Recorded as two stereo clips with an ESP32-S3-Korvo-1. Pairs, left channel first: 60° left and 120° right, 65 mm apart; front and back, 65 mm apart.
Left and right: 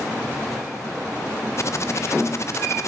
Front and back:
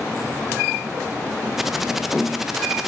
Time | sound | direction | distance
1.6 | typing on a keyboard | 95° left | 0.6 m